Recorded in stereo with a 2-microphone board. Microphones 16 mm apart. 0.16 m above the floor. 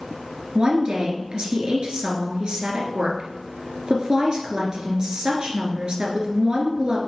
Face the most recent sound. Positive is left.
turn(degrees=-60)  # may be behind; listen again after turning